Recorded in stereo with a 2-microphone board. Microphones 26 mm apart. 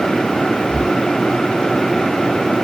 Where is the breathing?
55° left (ahead or behind).